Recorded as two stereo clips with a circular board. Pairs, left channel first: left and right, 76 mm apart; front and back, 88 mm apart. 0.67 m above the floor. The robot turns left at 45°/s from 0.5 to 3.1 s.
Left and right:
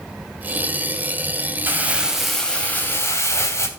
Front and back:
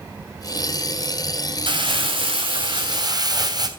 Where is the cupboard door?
I don't hear a cupboard door.